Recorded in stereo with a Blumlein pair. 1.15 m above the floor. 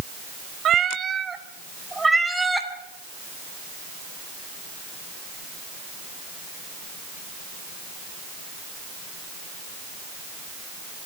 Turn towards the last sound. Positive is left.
turn(degrees=0)